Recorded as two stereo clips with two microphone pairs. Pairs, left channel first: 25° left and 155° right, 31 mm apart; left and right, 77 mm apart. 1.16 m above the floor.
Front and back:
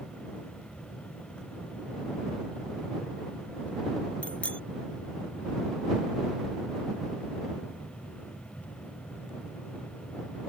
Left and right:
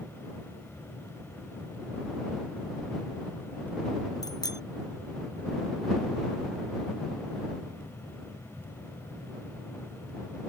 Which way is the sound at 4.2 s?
65° left.